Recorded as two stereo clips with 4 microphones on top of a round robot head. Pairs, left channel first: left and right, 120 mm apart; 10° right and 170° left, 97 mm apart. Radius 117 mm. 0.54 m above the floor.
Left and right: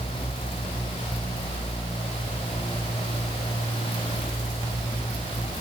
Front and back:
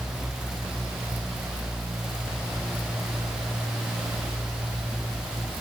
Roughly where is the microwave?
No microwave in this recording.